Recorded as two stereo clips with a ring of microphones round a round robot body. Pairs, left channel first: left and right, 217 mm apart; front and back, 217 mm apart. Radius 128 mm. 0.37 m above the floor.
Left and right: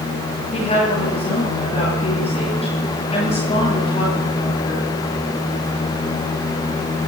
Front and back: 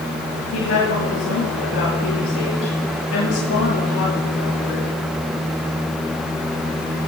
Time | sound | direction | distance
0.5 | a woman speaking | 25° left | 9 m